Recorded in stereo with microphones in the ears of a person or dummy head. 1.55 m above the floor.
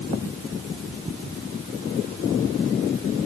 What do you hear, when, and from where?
Only background noise.